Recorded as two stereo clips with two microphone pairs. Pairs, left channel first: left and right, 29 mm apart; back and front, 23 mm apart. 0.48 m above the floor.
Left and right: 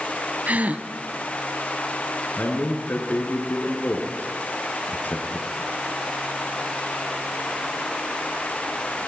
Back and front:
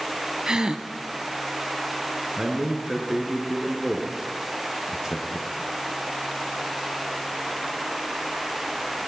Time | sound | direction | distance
0.5 | a gasp | 60° right | 1.3 m
2.4 | a man speaking | 75° left | 6.5 m